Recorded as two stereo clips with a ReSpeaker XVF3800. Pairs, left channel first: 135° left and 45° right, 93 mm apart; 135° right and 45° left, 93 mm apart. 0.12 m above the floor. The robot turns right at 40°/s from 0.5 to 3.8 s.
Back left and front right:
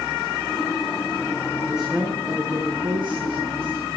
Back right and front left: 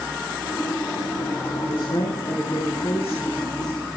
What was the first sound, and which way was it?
A woman speaking, 130° right.